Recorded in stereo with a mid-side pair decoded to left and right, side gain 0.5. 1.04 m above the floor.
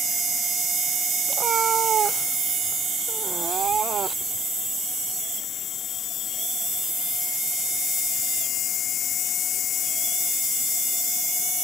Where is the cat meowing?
50° right; by 4.5 s 45° right.